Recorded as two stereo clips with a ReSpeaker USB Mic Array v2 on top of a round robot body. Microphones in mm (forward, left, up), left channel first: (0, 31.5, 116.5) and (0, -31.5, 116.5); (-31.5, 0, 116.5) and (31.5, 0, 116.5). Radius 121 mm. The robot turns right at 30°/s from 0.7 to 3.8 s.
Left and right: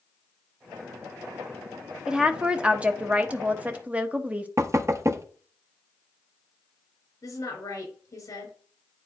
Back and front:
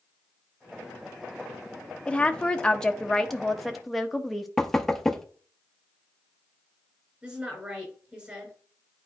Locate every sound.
2.1 s a woman speaking: 145° right, 0.8 m; by 4.5 s 90° right, 0.8 m
4.6 s knocking: 100° right, 0.8 m
7.2 s a woman speaking: 65° left, 4.5 m